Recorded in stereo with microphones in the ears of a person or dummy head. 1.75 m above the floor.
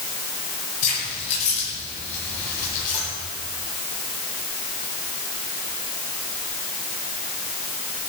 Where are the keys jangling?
40° left (ahead or behind), 9 m; by 3.0 s 45° left (ahead or behind), 11 m.